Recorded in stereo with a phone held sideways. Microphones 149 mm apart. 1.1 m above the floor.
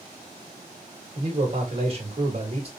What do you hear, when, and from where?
1.1 s a man speaking: 40° right (ahead or behind), 1.8 m